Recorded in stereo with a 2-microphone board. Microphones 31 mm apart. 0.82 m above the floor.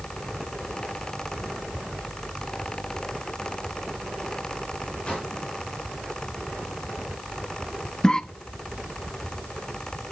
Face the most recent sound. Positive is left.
turn(degrees=25)  # may be behind; listen again after turning